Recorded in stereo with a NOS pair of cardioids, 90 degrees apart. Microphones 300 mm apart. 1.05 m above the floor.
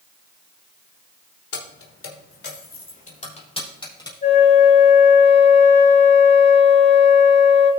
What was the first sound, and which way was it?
Keys jangling, 50° left.